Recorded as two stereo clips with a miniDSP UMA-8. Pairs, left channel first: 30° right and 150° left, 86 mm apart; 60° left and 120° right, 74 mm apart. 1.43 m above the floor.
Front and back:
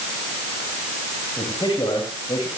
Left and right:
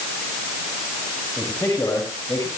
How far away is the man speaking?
About 8.5 m.